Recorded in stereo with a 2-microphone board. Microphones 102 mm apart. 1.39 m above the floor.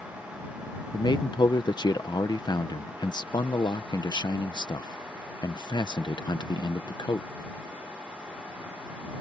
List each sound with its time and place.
0.9 s a man speaking: 45° left (ahead or behind)